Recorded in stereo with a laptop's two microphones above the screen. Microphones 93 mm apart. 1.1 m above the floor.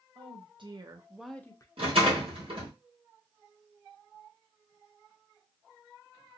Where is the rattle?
65° right (ahead or behind), 1.4 m.